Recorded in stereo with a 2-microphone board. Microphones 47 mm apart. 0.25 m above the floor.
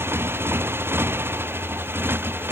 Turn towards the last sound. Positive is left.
turn(degrees=-50)  # may be behind; listen again after turning